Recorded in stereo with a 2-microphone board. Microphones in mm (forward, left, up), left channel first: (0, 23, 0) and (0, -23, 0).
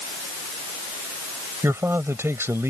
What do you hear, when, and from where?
1.6 s a man speaking: 75° right (ahead or behind)